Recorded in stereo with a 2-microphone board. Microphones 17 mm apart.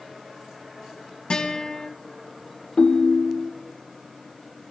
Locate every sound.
1.3 s a guitar: 40° left (ahead or behind), 2 m
2.8 s a ringtone: 65° left (ahead or behind), 0.8 m